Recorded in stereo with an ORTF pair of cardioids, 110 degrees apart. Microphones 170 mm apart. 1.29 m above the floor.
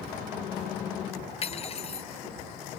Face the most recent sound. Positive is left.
turn(degrees=35)